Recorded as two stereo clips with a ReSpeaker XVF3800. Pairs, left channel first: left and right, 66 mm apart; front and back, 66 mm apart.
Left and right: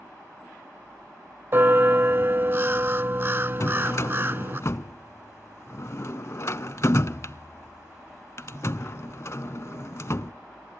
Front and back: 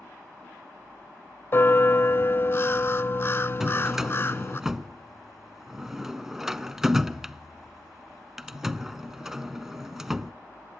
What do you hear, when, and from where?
1.5 s a bell: 45° right, 0.5 m
3.6 s a drawer: 100° left, 0.5 m